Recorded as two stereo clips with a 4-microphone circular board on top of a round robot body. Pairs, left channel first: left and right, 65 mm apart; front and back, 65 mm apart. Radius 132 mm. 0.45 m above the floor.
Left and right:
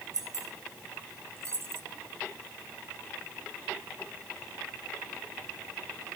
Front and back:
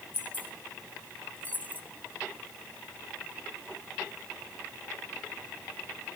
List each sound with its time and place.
0.1 s keys jangling: 60° right, 2.5 m; by 1.8 s 55° right, 1.0 m